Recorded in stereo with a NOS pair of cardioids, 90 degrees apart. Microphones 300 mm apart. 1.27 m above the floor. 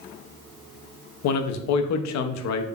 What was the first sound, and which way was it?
A man speaking, 65° left.